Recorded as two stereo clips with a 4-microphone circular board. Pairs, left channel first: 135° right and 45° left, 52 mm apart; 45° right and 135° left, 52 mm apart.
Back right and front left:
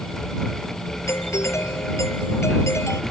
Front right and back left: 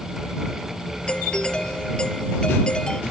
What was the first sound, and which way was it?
A doorbell, 115° right.